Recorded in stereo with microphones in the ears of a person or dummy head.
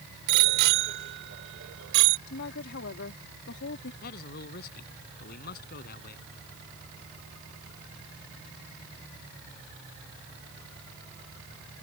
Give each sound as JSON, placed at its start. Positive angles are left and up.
{"t": 0.3, "sound": "a bicycle bell", "side_deg": -60}
{"t": 2.3, "sound": "a woman speaking", "side_deg": 65}
{"t": 4.0, "sound": "a man speaking", "side_deg": 55}